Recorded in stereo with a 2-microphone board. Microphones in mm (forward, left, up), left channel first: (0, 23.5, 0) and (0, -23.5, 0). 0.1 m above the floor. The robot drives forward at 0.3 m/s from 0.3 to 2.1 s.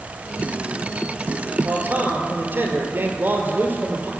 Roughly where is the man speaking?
Right.